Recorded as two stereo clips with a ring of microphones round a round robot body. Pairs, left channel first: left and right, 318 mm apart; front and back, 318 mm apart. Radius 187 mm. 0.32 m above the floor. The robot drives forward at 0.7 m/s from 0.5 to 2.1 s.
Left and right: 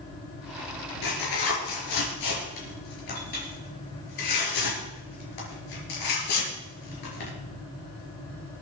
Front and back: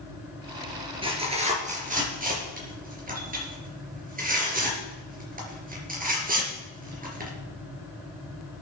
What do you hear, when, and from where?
1.0 s tearing paper: 105° left, 4 m; by 7.3 s 115° left, 4 m